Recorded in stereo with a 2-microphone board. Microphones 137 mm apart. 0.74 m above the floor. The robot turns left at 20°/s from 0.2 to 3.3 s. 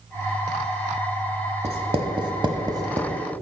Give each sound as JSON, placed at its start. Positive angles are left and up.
{"t": 1.6, "sound": "writing", "side_deg": -50, "distance_m": 1.0}